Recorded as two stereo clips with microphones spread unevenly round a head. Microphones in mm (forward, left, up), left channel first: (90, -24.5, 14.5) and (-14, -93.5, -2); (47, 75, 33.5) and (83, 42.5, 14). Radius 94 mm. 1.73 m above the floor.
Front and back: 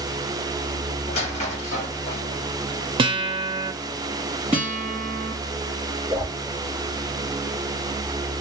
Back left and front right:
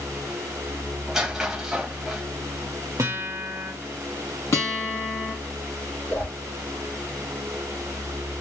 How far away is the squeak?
About 1.3 m.